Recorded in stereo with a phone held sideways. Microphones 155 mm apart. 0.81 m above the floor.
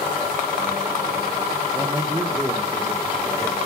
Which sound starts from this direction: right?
A man speaking, at 1.7 s.